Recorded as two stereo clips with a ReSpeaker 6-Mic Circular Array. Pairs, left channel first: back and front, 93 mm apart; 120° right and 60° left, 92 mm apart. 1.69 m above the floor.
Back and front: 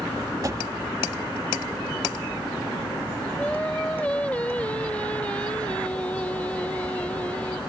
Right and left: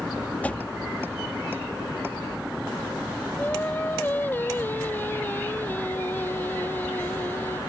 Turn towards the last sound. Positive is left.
turn(degrees=-135)